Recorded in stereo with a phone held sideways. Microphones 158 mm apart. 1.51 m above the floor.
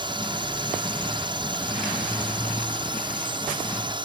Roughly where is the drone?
Right.